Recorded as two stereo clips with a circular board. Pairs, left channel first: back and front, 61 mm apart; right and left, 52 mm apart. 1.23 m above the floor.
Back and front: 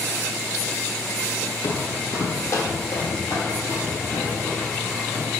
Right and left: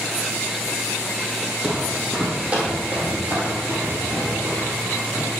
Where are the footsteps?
175° right, 2 m; by 5.3 s 130° left, 5.5 m.